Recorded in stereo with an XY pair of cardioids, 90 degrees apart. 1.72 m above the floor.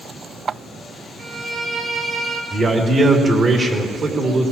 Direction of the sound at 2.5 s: 50° right.